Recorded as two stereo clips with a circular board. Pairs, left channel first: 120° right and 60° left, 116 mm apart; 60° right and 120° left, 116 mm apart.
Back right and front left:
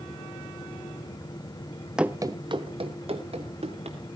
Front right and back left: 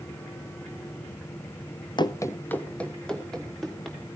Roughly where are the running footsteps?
Ahead right.